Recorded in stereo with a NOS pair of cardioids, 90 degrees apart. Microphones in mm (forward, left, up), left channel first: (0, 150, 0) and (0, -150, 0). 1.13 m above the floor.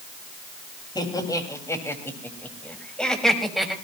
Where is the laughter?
15° left, 6 m; by 3.7 s straight ahead, 6 m.